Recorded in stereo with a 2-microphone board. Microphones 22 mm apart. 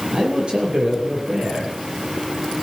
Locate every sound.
0.1 s a man speaking: 45° right (ahead or behind), 7.5 m